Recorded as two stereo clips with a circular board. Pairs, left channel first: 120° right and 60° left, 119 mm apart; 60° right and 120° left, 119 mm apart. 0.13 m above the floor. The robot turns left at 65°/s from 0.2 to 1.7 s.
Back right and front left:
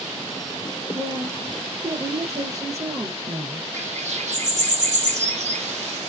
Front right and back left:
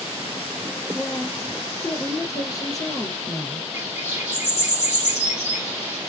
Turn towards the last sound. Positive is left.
turn(degrees=45)